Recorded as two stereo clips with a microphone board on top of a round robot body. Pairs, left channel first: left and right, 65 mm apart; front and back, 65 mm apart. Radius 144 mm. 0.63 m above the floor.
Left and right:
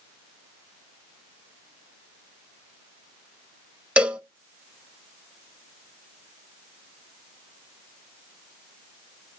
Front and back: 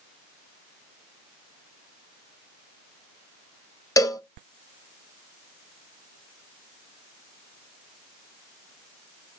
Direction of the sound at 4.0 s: 20° right.